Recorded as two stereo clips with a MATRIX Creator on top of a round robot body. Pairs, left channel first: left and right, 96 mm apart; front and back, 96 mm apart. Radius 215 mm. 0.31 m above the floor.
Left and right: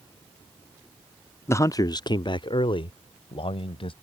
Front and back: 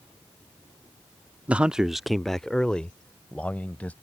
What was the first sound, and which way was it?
A man speaking, 115° left.